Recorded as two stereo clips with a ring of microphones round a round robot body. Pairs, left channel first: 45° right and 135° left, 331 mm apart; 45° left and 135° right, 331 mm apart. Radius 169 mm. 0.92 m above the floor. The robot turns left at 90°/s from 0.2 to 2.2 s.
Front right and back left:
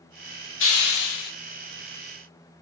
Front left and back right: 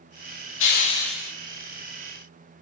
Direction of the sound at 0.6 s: Straight ahead.